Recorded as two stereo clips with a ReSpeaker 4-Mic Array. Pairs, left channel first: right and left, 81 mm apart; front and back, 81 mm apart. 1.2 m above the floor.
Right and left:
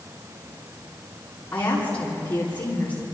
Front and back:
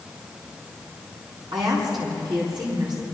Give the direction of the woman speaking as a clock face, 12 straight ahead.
5 o'clock.